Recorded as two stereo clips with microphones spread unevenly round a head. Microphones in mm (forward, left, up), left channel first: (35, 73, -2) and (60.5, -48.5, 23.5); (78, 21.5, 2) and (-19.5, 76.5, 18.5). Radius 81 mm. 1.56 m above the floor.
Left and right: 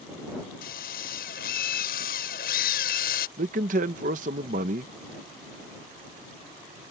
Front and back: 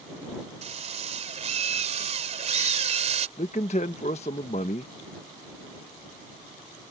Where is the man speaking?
85° right.